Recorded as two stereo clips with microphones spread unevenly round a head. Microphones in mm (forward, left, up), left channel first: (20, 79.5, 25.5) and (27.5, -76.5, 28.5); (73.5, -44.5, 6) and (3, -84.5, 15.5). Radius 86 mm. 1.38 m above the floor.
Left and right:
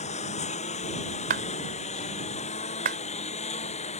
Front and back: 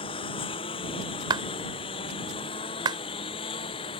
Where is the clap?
130° right.